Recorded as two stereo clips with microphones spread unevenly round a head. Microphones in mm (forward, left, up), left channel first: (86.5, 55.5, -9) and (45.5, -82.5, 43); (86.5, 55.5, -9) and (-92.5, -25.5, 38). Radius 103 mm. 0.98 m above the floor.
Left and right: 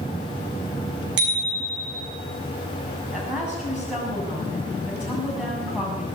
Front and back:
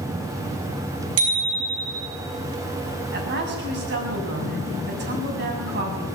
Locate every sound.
1.2 s a bicycle bell: 135° right, 6.5 m
3.1 s a woman speaking: 170° left, 7.5 m